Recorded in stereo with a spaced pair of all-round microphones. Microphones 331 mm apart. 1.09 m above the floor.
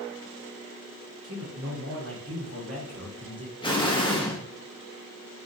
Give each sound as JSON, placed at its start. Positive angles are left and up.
{"t": 1.2, "sound": "a man speaking", "side_deg": -45, "distance_m": 1.1}
{"t": 3.6, "sound": "an explosion", "side_deg": 15, "distance_m": 0.7}